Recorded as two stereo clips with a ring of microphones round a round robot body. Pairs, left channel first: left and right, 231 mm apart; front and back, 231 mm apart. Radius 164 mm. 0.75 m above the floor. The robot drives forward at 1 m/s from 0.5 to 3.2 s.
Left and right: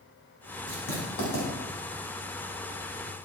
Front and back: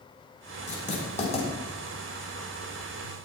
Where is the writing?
55° left, 7.5 m; by 1.5 s 60° left, 7 m.